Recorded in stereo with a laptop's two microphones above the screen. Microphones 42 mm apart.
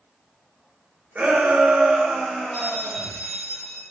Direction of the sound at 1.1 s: 40° right (ahead or behind).